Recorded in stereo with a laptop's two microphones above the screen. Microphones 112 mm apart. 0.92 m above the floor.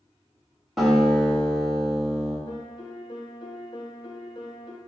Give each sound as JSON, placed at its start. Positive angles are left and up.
{"t": 0.8, "sound": "a guitar", "side_deg": 0, "distance_m": 2.0}
{"t": 2.5, "sound": "a piano", "side_deg": 40, "distance_m": 0.5}